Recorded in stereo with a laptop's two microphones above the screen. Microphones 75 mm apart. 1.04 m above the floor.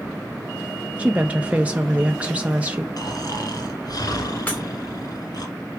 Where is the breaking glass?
20° left (ahead or behind), 2.5 m.